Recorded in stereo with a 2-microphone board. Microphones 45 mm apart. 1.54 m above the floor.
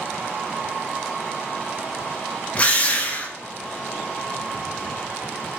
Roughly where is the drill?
Left.